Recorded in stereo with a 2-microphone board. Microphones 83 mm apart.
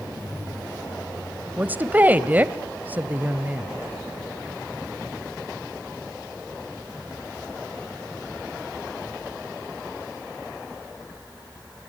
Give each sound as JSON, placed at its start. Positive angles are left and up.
{"t": 1.6, "sound": "a woman speaking", "side_deg": -20, "distance_m": 1.0}